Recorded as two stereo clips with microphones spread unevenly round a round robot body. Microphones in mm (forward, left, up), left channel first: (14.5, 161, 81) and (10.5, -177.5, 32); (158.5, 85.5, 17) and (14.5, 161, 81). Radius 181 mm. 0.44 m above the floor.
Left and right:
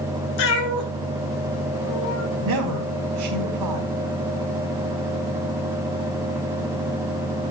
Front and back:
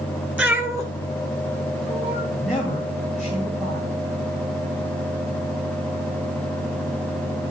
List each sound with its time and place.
0.4 s a cat meowing: 70° left, 1.5 m; by 2.2 s 105° left, 3.5 m
2.3 s a man speaking: 110° right, 1.9 m